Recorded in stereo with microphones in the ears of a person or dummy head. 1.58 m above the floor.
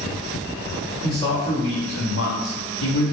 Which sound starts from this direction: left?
A man speaking, at 1.0 s.